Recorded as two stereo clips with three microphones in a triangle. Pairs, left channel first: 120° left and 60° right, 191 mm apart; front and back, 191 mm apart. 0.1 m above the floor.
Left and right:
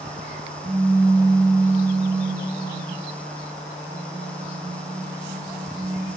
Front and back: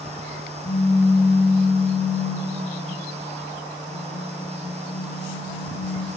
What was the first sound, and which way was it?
A pop, 5° left.